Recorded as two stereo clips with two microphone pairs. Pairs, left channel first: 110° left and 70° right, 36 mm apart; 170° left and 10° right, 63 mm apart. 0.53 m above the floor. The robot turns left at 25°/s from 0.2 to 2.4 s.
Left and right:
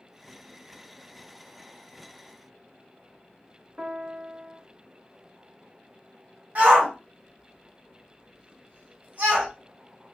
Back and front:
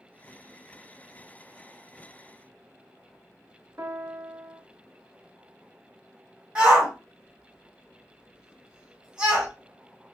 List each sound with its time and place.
3.8 s a piano: 40° right, 0.5 m
6.5 s a shout: 80° right, 1.8 m